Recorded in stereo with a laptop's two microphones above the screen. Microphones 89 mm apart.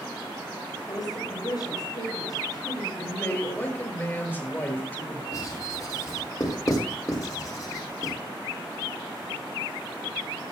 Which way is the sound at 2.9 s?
25° left (ahead or behind).